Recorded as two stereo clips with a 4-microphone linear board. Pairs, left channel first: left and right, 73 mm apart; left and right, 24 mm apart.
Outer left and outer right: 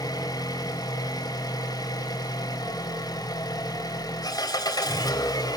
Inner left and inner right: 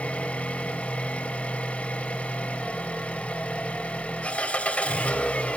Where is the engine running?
55° left (ahead or behind), 3 m.